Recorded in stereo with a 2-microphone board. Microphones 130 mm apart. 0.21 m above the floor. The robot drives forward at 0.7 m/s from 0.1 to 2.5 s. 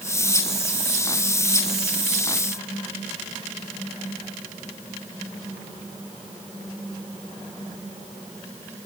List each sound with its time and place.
Only background noise.